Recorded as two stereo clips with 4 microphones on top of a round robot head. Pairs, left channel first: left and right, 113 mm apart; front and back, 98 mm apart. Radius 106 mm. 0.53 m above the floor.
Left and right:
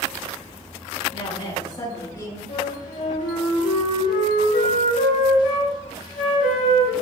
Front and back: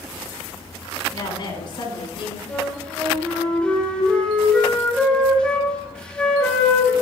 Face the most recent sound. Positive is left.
turn(degrees=75)